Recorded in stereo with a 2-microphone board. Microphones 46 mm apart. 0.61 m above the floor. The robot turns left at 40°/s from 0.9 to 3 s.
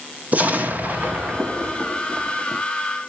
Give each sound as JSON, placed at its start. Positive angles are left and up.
{"t": 0.3, "sound": "an explosion", "azimuth_deg": -80, "distance_m": 1.1}